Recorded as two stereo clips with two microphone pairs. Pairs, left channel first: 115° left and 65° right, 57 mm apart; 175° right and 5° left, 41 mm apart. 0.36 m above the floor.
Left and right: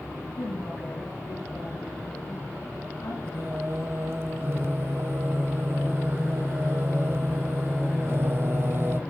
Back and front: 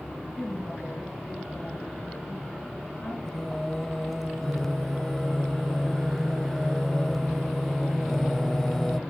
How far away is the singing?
About 0.8 m.